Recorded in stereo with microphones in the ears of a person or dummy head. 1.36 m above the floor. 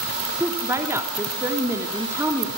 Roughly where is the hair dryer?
I don't hear a hair dryer.